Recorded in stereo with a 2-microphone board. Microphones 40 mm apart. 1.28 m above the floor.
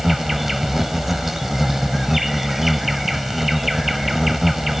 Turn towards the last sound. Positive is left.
turn(degrees=-5)  # may be behind; listen again after turning